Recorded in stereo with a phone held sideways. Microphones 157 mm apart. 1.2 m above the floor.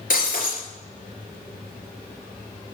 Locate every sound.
0.1 s breaking glass: 65° left (ahead or behind), 3.5 m